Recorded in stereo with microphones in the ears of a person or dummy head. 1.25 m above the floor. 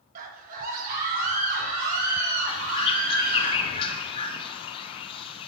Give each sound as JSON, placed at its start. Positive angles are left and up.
{"t": 0.1, "sound": "a scream", "side_deg": -45, "distance_m": 1.5}
{"t": 2.5, "sound": "a bird", "side_deg": 30, "distance_m": 0.9}